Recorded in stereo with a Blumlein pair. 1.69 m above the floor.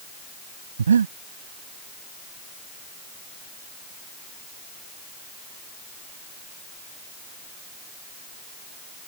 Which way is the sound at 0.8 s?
70° right.